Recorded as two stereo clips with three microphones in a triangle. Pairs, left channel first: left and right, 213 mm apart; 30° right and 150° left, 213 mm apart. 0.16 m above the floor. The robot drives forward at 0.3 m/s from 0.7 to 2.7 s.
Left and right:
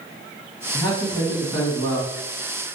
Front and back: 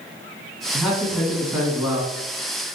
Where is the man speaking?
55° left, 1.7 m; by 2.1 s 95° left, 1.6 m.